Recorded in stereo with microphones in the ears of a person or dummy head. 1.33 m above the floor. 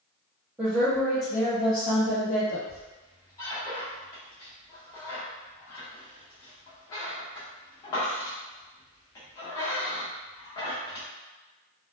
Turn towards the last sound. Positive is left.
turn(degrees=20)  # may be behind; listen again after turning